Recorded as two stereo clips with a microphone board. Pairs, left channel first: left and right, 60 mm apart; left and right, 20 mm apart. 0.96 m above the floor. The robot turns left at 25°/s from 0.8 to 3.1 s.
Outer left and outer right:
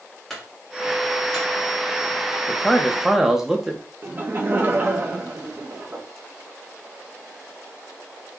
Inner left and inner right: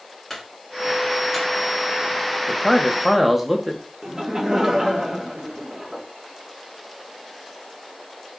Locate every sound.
0.3 s a clunk: 5° left (ahead or behind), 2 m; by 1.5 s 10° right (ahead or behind), 2 m
2.5 s a man speaking: 5° left (ahead or behind), 1.0 m; by 3.8 s 5° right (ahead or behind), 1.0 m
4.0 s laughter: 35° right (ahead or behind), 1.1 m